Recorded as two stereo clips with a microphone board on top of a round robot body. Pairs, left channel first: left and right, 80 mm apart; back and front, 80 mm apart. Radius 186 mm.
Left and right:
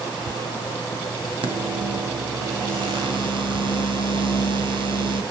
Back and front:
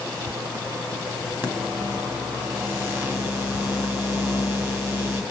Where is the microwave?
65° right, 2.0 m.